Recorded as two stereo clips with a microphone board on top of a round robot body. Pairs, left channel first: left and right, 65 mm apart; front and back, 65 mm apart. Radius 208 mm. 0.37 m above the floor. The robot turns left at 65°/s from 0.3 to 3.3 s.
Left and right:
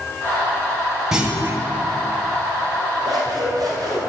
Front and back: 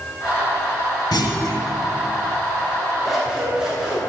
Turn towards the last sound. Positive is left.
turn(degrees=-105)